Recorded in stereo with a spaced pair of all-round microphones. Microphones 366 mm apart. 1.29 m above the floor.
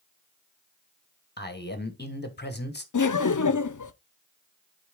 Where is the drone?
I don't hear a drone.